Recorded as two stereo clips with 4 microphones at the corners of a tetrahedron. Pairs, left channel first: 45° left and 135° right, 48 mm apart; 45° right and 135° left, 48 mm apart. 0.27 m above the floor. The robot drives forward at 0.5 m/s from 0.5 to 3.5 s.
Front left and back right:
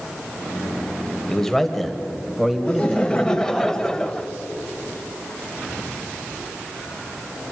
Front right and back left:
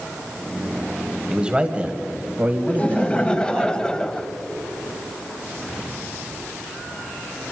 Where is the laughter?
5° right, 1.3 m; by 4.3 s 10° right, 1.1 m.